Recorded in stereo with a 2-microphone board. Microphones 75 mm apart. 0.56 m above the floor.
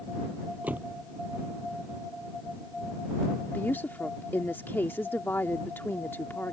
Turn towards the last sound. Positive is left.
turn(degrees=30)  # may be behind; listen again after turning